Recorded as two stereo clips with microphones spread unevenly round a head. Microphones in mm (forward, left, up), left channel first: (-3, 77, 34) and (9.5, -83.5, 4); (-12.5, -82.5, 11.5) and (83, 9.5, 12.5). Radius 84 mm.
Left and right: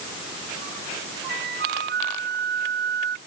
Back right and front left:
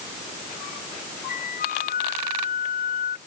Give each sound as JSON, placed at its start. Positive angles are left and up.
{"t": 1.3, "sound": "a flute", "azimuth_deg": -120}